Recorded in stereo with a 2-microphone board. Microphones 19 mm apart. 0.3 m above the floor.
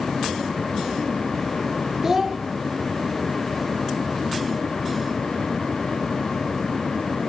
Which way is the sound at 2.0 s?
20° right (ahead or behind).